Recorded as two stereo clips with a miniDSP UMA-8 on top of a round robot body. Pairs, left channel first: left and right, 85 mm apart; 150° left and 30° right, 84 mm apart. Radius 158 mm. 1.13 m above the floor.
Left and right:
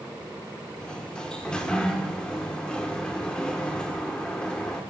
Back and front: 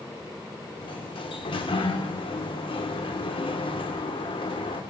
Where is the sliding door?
170° left, 1.9 m.